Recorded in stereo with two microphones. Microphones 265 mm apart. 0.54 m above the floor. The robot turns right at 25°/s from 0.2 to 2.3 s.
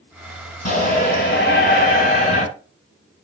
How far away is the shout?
About 2.5 m.